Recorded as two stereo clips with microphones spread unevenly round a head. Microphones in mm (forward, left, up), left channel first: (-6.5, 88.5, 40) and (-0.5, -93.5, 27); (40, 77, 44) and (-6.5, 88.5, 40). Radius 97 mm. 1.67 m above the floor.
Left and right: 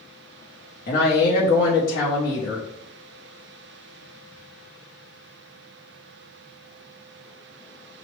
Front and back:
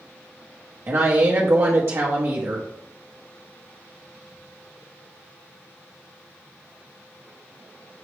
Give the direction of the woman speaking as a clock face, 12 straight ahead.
8 o'clock.